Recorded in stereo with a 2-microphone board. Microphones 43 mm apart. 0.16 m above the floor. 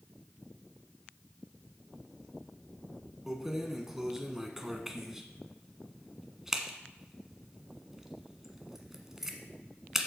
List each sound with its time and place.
3.3 s keys jangling: 10° right (ahead or behind), 1.1 m